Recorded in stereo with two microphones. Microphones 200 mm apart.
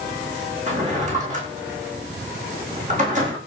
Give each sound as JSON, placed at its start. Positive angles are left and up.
{"t": 0.7, "sound": "a drawer", "side_deg": -35, "distance_m": 8.5}